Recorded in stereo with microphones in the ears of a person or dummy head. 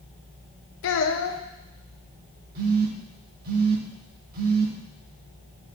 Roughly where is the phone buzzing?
Right.